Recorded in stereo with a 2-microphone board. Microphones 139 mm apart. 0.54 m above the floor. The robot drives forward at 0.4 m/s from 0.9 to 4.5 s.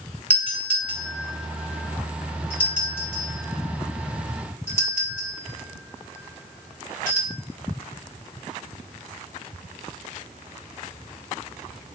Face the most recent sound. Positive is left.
turn(degrees=15)  # may be behind; listen again after turning